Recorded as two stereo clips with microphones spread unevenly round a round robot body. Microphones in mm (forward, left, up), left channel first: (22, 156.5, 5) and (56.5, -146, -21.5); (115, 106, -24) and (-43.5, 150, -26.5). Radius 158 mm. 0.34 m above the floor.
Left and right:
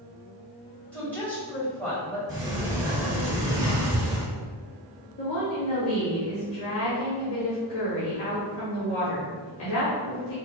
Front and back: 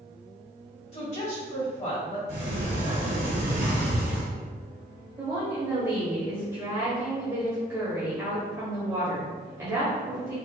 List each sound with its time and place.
0.9 s a woman speaking: 5° left, 1.8 m
2.3 s a sliding door: 165° right, 1.1 m
5.2 s a woman speaking: 105° left, 1.1 m